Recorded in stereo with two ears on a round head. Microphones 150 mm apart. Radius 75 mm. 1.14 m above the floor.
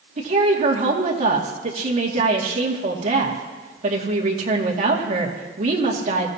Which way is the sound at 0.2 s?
45° right (ahead or behind).